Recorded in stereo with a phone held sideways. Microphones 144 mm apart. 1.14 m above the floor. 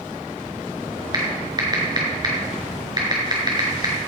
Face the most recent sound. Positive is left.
turn(degrees=-30)  # may be behind; listen again after turning